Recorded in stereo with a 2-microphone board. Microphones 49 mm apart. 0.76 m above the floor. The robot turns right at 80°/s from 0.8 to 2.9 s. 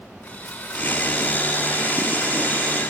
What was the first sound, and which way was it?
Sawing, 145° left.